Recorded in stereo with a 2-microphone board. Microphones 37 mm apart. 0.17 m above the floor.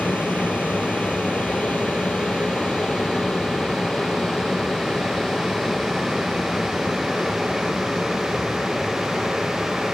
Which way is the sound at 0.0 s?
55° left (ahead or behind).